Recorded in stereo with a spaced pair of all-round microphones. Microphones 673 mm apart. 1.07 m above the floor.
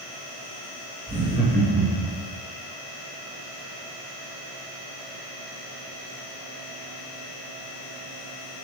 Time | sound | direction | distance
1.1 | laughter | 5° right (ahead or behind) | 1.6 m